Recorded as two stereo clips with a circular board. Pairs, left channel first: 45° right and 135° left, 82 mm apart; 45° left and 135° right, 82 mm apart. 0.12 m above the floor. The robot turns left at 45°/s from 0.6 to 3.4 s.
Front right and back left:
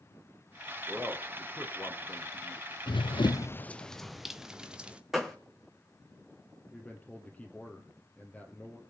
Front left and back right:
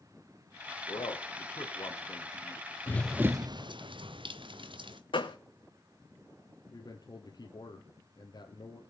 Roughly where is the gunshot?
Ahead left.